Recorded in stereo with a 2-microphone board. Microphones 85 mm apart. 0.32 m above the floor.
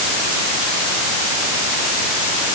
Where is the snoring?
I don't hear snoring.